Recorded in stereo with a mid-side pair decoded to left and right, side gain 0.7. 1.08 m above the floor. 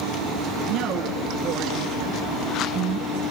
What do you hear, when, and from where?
0.7 s a woman speaking: 55° right, 9 m; by 3.2 s 60° right, 7.5 m